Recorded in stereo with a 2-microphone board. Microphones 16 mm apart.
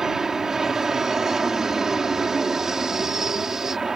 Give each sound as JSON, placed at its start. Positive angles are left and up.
{"t": 0.0, "sound": "an aircraft", "side_deg": -35}